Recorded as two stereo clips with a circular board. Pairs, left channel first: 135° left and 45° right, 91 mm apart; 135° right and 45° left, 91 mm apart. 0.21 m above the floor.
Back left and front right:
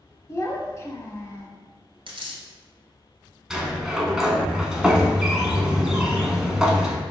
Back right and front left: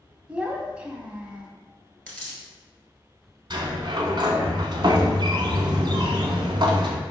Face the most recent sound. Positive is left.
turn(degrees=35)